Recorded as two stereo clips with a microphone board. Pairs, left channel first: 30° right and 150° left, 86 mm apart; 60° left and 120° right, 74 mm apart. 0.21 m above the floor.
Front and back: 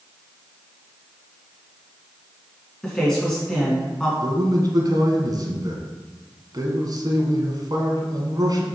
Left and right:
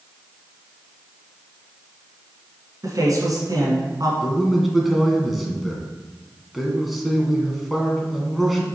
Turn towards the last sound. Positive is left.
turn(degrees=155)